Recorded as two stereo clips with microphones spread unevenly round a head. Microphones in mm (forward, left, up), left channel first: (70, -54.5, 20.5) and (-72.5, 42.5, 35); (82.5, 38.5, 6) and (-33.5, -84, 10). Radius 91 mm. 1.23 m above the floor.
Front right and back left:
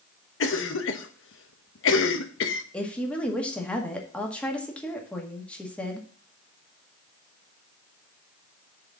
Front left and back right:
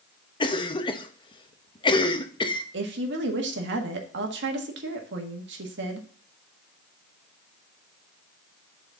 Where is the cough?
15° right, 1.1 m.